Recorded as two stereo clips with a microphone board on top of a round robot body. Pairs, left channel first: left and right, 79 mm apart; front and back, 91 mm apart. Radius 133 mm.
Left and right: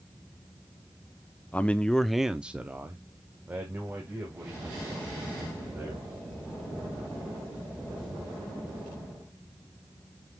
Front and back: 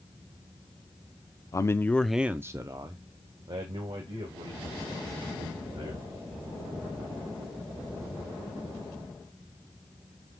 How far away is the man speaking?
About 0.9 m.